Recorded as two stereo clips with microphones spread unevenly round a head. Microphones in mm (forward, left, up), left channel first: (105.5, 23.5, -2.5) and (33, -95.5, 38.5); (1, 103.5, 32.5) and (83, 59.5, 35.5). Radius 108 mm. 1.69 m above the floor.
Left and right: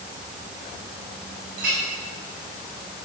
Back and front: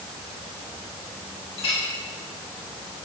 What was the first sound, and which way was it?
A clink, 170° right.